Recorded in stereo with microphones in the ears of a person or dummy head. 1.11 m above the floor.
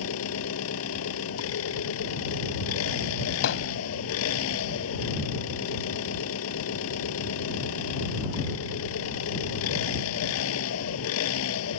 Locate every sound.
0.0 s an engine running: 80° left
3.4 s hammering: 70° left (ahead or behind)